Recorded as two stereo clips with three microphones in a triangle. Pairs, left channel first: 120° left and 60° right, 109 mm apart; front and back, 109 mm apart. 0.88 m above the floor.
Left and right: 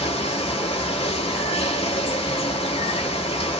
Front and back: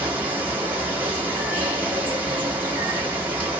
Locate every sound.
0.0 s running water: 105° left, 1.4 m